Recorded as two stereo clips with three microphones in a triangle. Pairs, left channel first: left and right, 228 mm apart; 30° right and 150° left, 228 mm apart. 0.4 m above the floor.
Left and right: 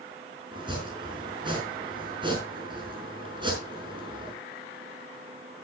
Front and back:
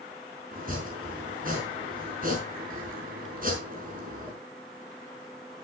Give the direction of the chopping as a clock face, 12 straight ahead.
5 o'clock.